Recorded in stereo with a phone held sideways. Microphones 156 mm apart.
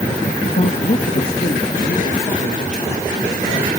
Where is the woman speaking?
60° left (ahead or behind), 0.8 m; by 3.7 s 55° left (ahead or behind), 3 m.